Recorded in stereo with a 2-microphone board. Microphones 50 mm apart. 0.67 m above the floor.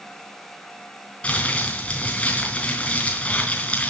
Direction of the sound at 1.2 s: 25° left (ahead or behind).